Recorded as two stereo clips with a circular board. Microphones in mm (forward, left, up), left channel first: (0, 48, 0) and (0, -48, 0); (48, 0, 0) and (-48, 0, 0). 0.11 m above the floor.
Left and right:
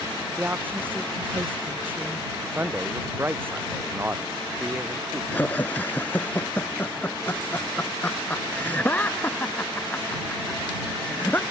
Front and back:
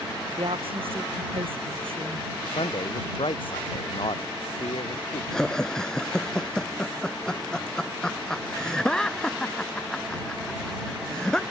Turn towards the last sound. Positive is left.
turn(degrees=70)